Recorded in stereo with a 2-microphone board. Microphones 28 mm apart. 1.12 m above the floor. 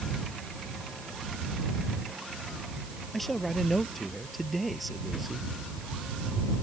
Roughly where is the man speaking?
Centre.